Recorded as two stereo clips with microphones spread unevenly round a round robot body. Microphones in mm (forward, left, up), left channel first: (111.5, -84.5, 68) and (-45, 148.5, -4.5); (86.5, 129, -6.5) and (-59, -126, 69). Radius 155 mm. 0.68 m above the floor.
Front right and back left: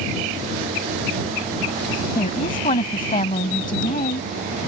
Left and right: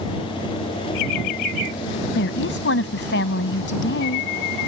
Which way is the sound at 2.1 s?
10° left.